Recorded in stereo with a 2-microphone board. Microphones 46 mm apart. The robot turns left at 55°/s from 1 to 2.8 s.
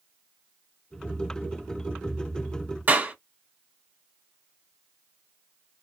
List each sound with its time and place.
2.9 s a clap: 40° right (ahead or behind), 1.4 m